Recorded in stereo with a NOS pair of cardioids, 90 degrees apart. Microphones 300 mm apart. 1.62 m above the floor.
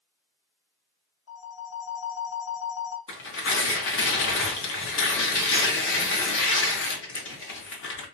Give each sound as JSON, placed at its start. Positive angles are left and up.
{"t": 1.3, "sound": "a phone ringing", "azimuth_deg": 65, "distance_m": 1.7}
{"t": 3.1, "sound": "tearing paper", "azimuth_deg": 45, "distance_m": 1.2}